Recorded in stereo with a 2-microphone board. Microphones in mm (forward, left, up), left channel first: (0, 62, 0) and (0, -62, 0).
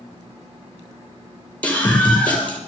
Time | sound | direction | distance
1.6 | a scream | 10° left (ahead or behind) | 4.5 m